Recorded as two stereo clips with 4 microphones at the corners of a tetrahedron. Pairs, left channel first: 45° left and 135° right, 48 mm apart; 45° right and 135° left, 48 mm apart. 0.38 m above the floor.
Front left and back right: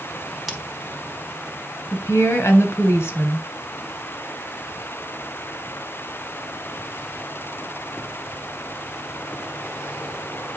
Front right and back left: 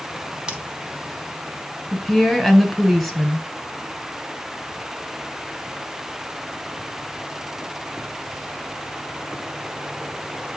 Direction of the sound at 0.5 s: 145° left.